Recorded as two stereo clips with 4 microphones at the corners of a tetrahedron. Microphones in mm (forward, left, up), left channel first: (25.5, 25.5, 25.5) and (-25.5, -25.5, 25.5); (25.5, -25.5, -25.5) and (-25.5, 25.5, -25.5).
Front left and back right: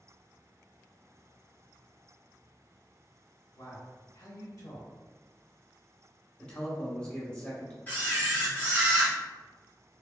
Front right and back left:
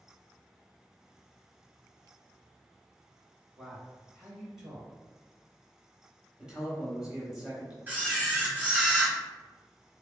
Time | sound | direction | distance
3.6 | a man speaking | 50° left | 1.9 m
6.4 | a man speaking | 80° left | 1.0 m
7.9 | a camera shutter | 90° left | 1.3 m